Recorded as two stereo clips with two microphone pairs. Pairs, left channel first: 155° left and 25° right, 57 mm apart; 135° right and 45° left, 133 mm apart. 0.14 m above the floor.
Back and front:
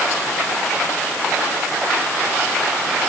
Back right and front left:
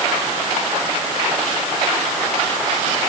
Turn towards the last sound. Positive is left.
No sound to turn to.